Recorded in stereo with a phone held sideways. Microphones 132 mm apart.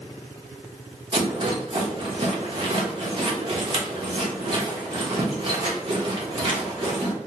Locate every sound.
1.1 s a rattle: 40° right (ahead or behind), 0.9 m